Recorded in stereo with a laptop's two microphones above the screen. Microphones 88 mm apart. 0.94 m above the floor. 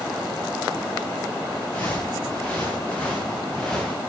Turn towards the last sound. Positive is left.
turn(degrees=5)  # may be behind; listen again after turning